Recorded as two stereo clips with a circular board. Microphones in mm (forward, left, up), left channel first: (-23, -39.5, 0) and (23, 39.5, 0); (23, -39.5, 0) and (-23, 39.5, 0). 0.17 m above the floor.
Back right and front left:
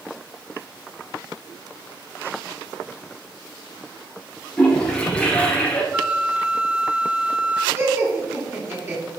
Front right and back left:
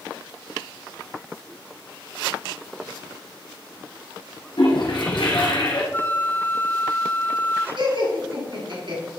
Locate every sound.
4.6 s a toilet flushing: 40° right, 1.9 m
5.9 s a flute: 10° right, 0.5 m
7.8 s laughter: 120° left, 3 m